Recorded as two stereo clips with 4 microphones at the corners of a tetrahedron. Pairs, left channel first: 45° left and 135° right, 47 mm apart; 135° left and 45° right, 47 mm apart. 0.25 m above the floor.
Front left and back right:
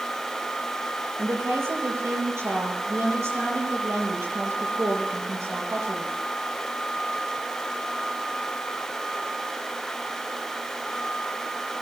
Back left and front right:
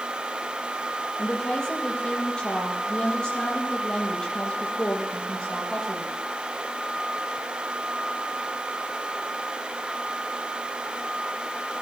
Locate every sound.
1.2 s a woman speaking: 155° right, 6.5 m